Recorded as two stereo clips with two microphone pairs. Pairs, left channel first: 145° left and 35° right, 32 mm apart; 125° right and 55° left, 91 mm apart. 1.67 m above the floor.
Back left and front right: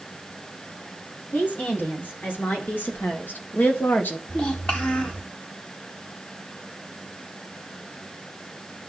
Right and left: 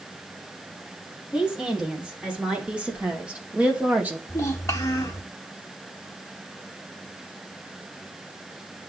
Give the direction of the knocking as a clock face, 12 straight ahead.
No knocking in this recording.